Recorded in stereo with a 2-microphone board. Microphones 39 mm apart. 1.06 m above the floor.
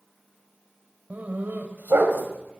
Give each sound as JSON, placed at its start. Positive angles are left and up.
{"t": 1.1, "sound": "a dog barking", "side_deg": -45, "distance_m": 1.8}